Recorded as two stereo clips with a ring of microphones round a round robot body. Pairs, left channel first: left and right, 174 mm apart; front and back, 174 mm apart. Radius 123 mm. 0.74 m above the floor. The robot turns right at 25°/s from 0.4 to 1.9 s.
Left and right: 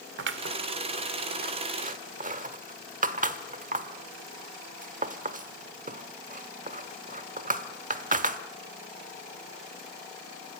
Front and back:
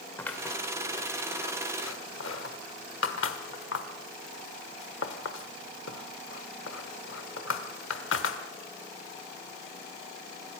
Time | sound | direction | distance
0.2 | scissors | 85° right | 1.2 m